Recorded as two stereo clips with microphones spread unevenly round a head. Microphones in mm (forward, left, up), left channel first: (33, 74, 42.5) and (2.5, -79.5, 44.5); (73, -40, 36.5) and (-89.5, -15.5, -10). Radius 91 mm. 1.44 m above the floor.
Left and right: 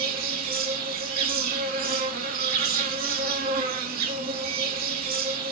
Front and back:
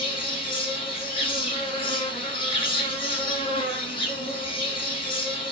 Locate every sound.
0.0 s an insect: 70° right, 1.5 m